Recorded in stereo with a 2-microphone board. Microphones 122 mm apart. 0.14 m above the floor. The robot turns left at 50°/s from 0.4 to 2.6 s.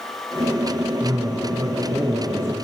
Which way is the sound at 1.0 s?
25° right (ahead or behind).